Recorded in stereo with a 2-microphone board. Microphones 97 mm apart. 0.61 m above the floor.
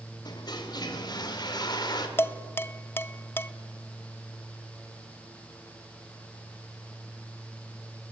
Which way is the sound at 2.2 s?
25° left (ahead or behind).